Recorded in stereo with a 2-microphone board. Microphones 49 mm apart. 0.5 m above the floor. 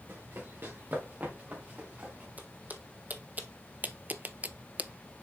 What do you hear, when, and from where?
0.1 s running footsteps: 55° right (ahead or behind), 2.5 m; by 2.3 s 30° right (ahead or behind), 3.5 m
2.4 s footsteps: 35° right (ahead or behind), 1.5 m; by 5.2 s 15° right (ahead or behind), 0.5 m